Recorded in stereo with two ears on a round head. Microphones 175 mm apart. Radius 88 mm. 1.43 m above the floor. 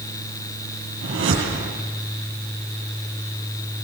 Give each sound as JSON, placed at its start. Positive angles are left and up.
{"t": 1.0, "sound": "a whoosh", "side_deg": -65, "distance_m": 9.5}